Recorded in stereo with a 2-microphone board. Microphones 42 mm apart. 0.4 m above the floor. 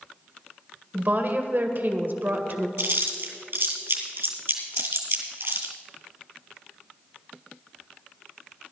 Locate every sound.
0.9 s a woman speaking: 50° right (ahead or behind), 1.3 m
2.8 s chewing: 60° right (ahead or behind), 2.5 m